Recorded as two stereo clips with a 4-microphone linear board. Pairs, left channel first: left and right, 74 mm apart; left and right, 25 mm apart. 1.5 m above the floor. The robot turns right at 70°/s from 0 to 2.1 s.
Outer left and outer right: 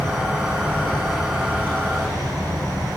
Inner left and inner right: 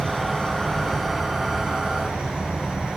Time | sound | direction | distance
0.0 | an insect | 100° left | 8 m